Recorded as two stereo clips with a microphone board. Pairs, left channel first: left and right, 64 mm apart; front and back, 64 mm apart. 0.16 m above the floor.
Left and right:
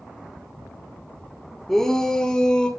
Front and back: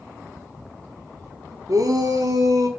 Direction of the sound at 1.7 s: 175° left.